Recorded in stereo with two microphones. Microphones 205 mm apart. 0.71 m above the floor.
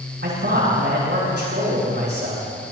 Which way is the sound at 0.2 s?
55° right (ahead or behind).